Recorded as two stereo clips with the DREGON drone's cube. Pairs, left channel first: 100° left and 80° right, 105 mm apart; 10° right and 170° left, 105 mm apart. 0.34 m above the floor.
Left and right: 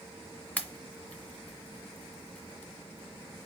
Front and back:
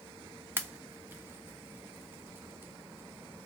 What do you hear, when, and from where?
0.6 s a pop: 145° left, 0.6 m